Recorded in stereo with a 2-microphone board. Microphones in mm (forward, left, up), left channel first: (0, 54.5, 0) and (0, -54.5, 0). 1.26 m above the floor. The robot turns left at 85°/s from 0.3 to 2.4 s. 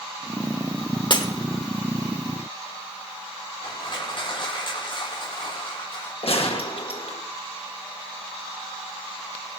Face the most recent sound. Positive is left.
turn(degrees=60)  # may be behind; listen again after turning